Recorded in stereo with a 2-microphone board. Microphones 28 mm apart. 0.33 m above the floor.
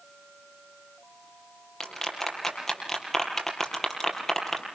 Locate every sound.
1.8 s a clap: 10° left (ahead or behind), 5.5 m